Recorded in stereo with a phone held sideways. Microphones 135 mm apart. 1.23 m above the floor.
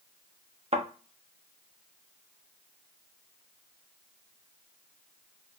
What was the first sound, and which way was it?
A thud, 50° right (ahead or behind).